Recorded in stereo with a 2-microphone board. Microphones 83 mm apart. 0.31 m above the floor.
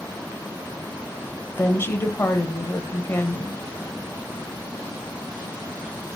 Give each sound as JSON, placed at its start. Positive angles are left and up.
{"t": 1.5, "sound": "a woman speaking", "side_deg": 30, "distance_m": 1.0}